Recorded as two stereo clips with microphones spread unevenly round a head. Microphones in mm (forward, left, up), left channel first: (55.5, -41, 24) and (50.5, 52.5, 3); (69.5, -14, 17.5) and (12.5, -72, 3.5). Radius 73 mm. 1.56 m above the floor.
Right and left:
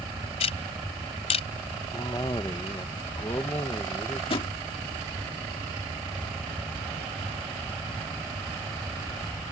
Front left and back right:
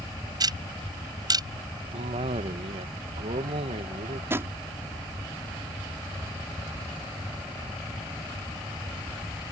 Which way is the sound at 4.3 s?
70° right.